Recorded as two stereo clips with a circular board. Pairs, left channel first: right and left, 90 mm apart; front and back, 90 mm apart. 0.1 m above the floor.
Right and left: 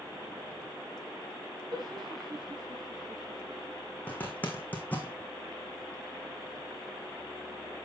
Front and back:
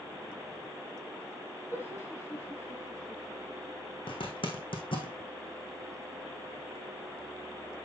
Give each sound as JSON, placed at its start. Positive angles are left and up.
{"t": 1.7, "sound": "laughter", "azimuth_deg": 60, "distance_m": 4.5}
{"t": 4.1, "sound": "a zipper", "azimuth_deg": -20, "distance_m": 2.5}